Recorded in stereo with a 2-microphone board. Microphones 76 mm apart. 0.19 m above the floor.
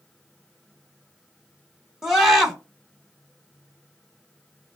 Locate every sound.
2.0 s a scream: 5° right (ahead or behind), 1.3 m